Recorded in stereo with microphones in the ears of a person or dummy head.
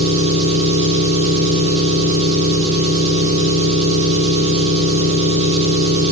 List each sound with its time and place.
0.0 s an engine running: 35° right (ahead or behind), 0.9 m